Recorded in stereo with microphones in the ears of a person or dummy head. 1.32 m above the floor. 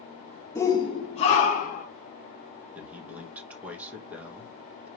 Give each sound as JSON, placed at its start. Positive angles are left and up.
{"t": 0.6, "sound": "a shout", "side_deg": 15, "distance_m": 1.0}
{"t": 2.8, "sound": "a man speaking", "side_deg": -10, "distance_m": 1.5}